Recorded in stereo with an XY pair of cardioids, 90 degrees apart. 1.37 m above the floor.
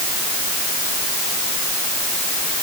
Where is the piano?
No piano in this recording.